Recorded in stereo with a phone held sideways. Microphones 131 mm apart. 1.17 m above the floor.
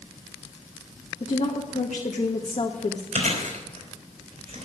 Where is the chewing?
55° right (ahead or behind), 4 m.